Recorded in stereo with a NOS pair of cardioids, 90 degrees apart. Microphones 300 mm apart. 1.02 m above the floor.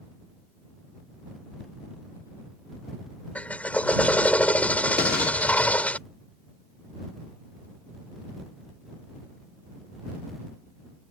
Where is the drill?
5° left.